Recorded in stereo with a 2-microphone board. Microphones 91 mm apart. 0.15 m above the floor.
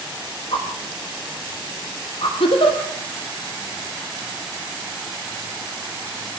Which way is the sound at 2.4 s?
75° left (ahead or behind).